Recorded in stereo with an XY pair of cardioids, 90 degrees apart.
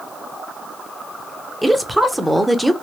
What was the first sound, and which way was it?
A woman speaking, straight ahead.